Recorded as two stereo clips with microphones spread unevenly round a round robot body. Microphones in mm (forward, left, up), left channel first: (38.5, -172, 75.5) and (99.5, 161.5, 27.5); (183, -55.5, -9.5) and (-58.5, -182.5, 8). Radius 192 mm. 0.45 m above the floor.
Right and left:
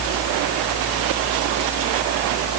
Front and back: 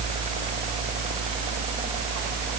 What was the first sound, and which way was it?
Only background noise.